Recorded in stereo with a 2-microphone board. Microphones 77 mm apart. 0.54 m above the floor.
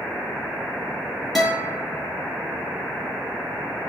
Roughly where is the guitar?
Centre.